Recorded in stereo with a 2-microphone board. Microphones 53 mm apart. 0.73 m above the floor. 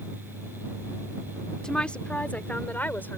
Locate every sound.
1.6 s a woman speaking: 15° left (ahead or behind); by 3.2 s 40° left (ahead or behind)